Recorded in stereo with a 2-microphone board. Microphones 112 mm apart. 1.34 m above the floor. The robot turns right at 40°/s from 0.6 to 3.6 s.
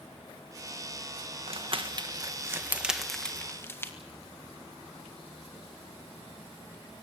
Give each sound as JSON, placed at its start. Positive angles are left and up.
{"t": 1.5, "sound": "crumpling", "side_deg": -60, "distance_m": 1.5}